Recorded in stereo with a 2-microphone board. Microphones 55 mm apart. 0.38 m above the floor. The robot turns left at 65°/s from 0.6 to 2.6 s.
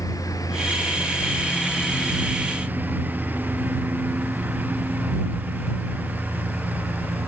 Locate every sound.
0.0 s a lawn mower: 80° left; by 7.3 s 30° right (ahead or behind)